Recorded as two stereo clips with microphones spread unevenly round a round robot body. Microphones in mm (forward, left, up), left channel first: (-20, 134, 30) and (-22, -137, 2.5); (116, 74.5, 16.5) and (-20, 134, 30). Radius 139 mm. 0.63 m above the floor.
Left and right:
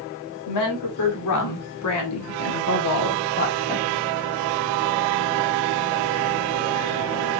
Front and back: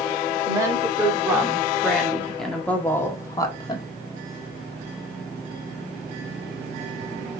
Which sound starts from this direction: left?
A woman speaking, at 0.5 s.